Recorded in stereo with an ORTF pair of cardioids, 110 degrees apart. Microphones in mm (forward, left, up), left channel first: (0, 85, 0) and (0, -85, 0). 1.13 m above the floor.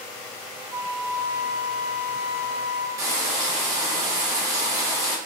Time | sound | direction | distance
0.7 | a flute | 15° right | 0.7 m
3.0 | frying | 20° right | 1.1 m